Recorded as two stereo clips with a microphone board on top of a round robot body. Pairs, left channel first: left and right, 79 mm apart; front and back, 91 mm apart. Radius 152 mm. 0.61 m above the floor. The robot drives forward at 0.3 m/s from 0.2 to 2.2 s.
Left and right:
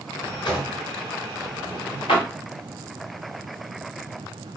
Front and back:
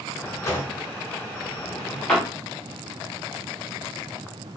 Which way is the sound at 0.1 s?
60° left.